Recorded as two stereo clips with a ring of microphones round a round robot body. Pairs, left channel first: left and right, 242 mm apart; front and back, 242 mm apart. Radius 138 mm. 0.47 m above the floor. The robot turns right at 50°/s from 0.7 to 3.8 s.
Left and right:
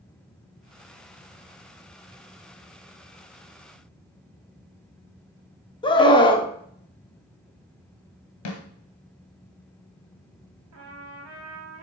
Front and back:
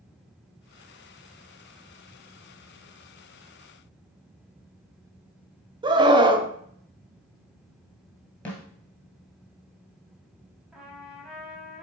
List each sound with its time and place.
5.8 s a scream: 135° left, 0.9 m
8.4 s a snare drum: 85° left, 1.7 m
10.7 s a trumpet: 95° right, 2 m